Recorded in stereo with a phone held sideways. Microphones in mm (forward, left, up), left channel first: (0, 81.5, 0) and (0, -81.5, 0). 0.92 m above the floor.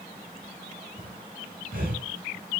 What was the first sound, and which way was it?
Breathing, 60° right (ahead or behind).